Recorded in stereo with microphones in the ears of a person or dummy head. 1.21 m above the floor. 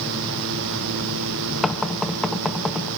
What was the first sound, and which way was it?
Knocking, centre (ahead or behind).